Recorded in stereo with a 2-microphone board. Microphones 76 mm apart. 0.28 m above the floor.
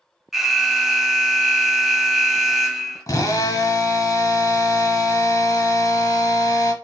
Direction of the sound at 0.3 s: 5° right (ahead or behind).